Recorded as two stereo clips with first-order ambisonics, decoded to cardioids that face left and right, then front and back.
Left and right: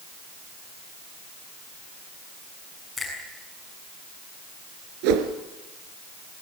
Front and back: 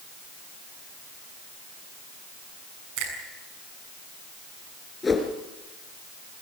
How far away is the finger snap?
About 7 m.